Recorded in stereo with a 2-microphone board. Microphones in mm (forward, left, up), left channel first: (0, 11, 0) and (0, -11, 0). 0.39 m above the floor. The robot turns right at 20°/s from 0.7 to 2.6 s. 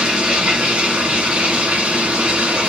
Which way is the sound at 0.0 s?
125° right.